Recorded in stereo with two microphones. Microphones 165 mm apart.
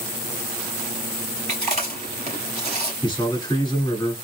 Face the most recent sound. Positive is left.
turn(degrees=25)  # may be behind; listen again after turning